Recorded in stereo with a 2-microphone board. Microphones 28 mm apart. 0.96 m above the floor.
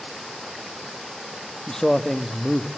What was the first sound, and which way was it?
A man speaking, 20° left (ahead or behind).